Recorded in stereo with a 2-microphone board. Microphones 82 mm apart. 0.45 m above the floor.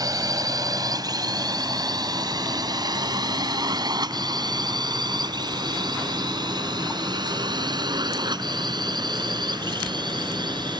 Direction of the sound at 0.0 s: 50° right (ahead or behind).